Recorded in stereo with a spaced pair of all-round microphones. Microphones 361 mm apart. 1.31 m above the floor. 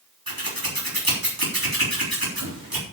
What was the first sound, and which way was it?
Scissors, 70° right (ahead or behind).